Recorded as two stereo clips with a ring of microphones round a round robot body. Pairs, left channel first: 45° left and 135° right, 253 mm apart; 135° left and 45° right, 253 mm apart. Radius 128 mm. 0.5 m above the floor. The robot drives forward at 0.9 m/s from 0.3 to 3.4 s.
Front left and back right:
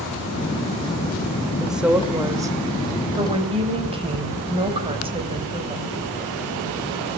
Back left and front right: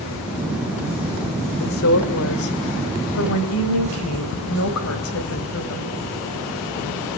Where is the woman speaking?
135° left, 1.9 m; by 6.0 s 160° left, 3 m.